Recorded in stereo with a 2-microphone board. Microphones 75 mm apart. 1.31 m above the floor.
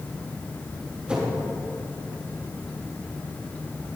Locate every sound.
1.1 s a whoosh: 15° right (ahead or behind), 3 m